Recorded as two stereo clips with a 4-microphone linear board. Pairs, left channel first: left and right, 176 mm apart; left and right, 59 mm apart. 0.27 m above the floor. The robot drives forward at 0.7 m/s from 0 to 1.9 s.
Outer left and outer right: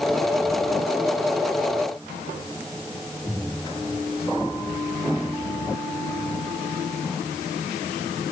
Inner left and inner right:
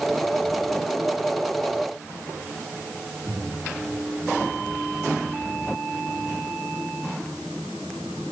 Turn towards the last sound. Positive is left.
No sound to turn to.